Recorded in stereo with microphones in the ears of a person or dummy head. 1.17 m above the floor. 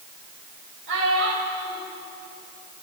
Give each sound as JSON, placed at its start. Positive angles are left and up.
{"t": 0.9, "sound": "a child speaking", "side_deg": -65, "distance_m": 3.5}